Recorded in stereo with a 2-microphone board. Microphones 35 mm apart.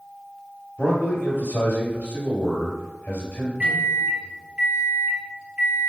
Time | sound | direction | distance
0.8 | a man speaking | 35° left (ahead or behind) | 1.4 m
3.6 | a microwave | 25° right (ahead or behind) | 1.1 m